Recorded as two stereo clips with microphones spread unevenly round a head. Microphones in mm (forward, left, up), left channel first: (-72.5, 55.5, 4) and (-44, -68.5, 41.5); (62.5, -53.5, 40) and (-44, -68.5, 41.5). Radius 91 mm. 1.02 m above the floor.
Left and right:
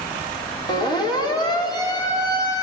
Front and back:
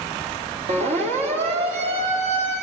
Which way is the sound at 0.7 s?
155° left.